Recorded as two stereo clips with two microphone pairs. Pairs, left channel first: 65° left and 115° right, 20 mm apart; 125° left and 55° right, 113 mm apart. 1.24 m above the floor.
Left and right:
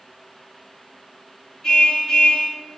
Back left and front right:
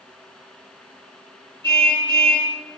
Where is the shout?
No shout in this recording.